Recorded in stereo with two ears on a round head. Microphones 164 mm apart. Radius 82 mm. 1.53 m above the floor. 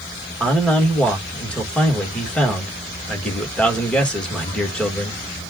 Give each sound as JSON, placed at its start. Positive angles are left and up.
{"t": 0.4, "sound": "a man speaking", "side_deg": 5, "distance_m": 2.5}